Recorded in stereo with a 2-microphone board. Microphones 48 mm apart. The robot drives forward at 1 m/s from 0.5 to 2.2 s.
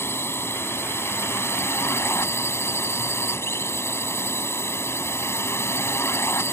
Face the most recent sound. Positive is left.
turn(degrees=65)  # may be behind; listen again after turning